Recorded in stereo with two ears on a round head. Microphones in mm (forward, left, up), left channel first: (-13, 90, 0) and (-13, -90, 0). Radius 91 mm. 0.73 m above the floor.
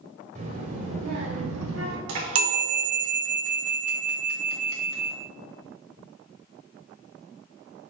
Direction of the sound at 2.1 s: 70° right (ahead or behind).